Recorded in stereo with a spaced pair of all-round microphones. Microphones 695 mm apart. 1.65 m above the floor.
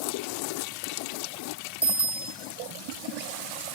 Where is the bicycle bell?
5° right (ahead or behind), 2.5 m.